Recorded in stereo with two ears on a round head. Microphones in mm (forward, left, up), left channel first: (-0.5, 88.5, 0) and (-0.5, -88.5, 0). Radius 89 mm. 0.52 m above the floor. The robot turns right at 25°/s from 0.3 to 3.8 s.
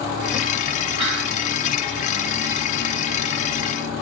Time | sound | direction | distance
1.0 | whispering | 30° right (ahead or behind) | 1.1 m